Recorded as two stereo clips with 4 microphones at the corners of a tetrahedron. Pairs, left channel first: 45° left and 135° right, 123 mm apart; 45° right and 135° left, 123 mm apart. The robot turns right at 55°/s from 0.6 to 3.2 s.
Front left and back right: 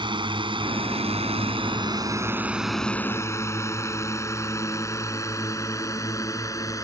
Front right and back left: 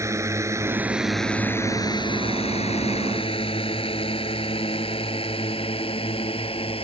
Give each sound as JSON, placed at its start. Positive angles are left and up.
{"t": 0.0, "sound": "a drone", "azimuth_deg": -165}